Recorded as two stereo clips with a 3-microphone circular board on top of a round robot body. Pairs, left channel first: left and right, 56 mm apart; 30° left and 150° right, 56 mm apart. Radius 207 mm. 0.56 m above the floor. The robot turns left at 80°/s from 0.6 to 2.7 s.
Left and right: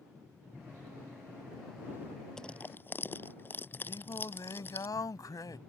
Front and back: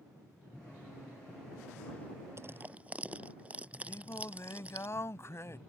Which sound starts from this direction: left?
Singing, at 3.9 s.